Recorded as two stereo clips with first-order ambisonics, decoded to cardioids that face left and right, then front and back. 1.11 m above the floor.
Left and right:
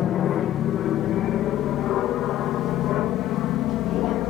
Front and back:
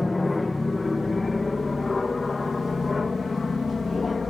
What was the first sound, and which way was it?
An aircraft, 75° left.